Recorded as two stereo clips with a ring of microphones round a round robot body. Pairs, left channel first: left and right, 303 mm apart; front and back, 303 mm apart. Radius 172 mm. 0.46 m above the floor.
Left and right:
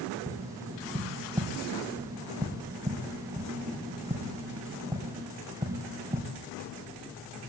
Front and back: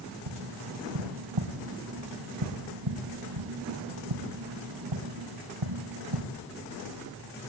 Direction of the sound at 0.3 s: 170° right.